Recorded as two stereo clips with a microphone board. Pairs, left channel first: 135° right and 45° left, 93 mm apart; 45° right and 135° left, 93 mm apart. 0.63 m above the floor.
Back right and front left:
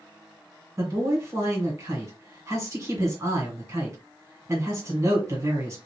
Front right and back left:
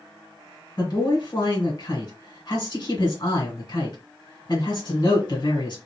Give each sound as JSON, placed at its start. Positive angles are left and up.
{"t": 0.8, "sound": "a man speaking", "azimuth_deg": -10, "distance_m": 1.9}